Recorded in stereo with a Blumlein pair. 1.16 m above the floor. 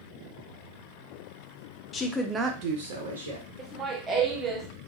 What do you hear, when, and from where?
1.9 s a woman speaking: 25° left, 0.6 m; by 3.5 s 75° right, 1.0 m
3.6 s laughter: 20° right, 0.6 m